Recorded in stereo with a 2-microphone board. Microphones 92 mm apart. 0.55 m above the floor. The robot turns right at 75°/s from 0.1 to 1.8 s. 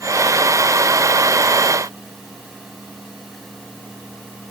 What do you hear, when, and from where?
Only background noise.